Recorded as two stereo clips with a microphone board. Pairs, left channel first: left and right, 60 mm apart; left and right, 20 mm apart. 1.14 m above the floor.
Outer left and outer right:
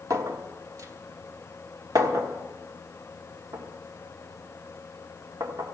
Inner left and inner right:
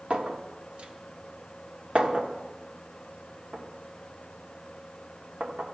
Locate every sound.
0.1 s a clink: 65° right (ahead or behind), 1.1 m